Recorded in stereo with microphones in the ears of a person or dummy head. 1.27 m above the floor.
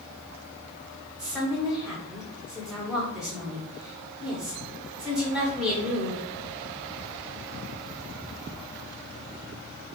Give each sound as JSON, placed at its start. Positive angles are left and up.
{"t": 1.2, "sound": "a woman speaking", "side_deg": -5, "distance_m": 1.6}